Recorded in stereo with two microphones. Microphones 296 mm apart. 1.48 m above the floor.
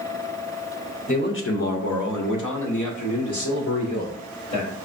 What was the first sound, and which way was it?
A man speaking, 25° left (ahead or behind).